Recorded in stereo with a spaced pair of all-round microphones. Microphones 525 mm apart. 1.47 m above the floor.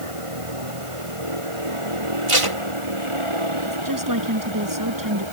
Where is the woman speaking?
35° right (ahead or behind).